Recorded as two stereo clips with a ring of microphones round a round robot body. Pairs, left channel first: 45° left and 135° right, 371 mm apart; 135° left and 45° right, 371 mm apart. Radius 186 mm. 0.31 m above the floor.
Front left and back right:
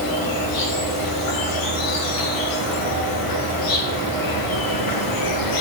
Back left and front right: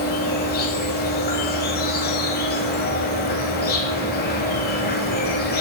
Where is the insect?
70° left, 0.7 m.